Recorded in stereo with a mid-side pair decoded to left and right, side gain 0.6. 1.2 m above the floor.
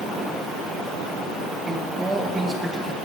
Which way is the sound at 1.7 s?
15° right.